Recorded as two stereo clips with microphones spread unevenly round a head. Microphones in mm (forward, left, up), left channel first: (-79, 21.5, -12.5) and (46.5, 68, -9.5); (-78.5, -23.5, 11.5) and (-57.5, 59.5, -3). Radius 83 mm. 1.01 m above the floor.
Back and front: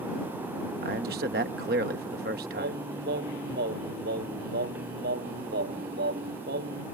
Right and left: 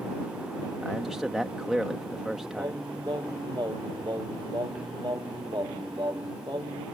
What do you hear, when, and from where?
0.8 s a man speaking: 10° right
2.6 s singing: 10° left